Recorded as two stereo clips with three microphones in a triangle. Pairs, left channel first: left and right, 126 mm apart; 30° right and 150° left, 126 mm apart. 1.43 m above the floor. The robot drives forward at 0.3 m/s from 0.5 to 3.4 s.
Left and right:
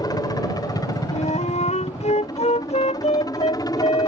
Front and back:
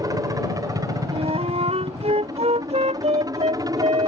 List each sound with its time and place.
0.0 s a helicopter: 115° left; by 4.1 s 120° left
1.1 s a flute: 115° left; by 4.1 s 120° left